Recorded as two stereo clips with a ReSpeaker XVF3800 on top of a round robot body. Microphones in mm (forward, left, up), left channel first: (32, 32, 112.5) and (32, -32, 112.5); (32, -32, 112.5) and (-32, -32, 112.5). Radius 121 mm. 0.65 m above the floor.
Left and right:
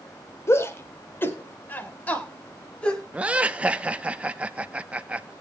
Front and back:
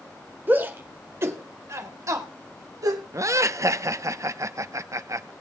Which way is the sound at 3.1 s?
155° right.